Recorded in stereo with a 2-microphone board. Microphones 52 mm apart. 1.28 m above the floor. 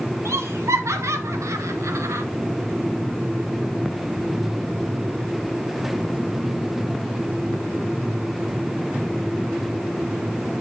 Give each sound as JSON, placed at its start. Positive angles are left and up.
{"t": 0.2, "sound": "laughter", "side_deg": -60, "distance_m": 2.0}